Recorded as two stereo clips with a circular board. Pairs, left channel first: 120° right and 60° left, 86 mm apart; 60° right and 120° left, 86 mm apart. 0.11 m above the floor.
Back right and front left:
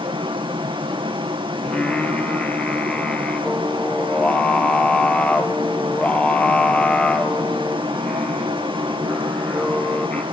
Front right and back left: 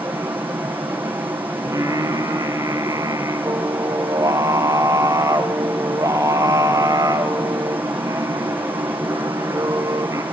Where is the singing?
165° left, 3 m.